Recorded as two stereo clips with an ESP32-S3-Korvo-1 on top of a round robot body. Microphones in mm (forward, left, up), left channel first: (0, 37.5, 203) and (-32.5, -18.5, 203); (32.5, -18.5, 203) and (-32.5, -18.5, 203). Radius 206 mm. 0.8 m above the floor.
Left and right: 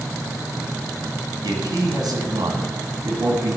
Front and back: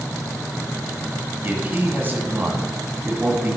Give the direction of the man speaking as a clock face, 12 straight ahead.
4 o'clock.